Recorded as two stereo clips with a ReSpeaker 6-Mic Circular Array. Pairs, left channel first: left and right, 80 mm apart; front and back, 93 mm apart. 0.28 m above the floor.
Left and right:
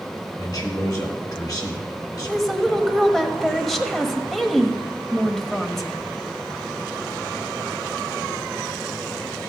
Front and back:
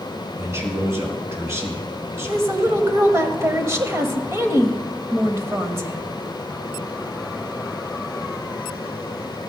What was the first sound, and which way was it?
A man speaking, 120° left.